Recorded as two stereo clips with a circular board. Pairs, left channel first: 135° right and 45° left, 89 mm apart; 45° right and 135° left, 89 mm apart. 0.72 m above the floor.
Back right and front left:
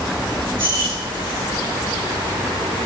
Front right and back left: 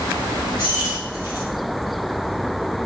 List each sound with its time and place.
0.6 s keys jangling: 75° left, 1.6 m